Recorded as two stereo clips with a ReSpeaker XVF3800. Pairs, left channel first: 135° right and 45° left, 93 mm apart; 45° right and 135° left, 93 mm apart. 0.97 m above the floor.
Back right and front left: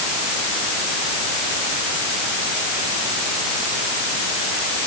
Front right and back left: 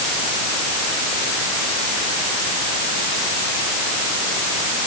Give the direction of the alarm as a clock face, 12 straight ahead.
No alarm in this recording.